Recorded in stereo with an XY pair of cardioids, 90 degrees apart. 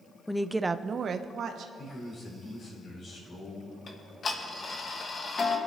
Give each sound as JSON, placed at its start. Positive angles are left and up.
{"t": 0.3, "sound": "a woman speaking", "azimuth_deg": 10, "distance_m": 0.6}
{"t": 1.8, "sound": "a man speaking", "azimuth_deg": 60, "distance_m": 4.5}
{"t": 3.9, "sound": "ticking", "azimuth_deg": 45, "distance_m": 1.4}